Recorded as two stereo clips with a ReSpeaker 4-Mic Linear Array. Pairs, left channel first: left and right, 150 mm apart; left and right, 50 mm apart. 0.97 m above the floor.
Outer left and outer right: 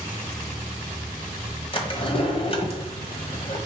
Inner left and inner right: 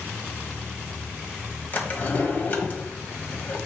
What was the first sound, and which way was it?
A drawer, 40° left (ahead or behind).